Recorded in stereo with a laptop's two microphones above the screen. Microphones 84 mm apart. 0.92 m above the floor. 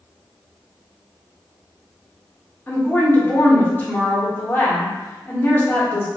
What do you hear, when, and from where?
2.7 s a woman speaking: 25° left (ahead or behind), 1.1 m